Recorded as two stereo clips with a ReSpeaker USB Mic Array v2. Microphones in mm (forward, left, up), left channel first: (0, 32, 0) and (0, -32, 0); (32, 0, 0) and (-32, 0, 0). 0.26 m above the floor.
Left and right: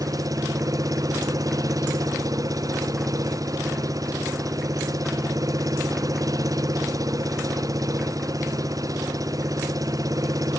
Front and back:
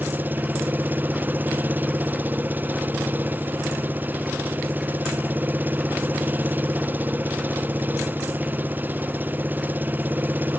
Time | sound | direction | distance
0.0 | an engine running | 120° right | ?